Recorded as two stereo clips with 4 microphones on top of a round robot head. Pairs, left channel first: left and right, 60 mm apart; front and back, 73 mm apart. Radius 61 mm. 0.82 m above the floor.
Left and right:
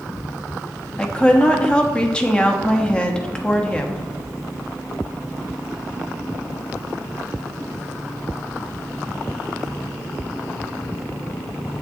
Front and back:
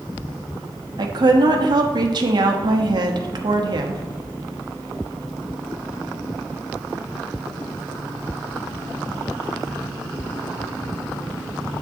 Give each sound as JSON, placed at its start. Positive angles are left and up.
{"t": 1.0, "sound": "a woman speaking", "azimuth_deg": 165, "distance_m": 1.1}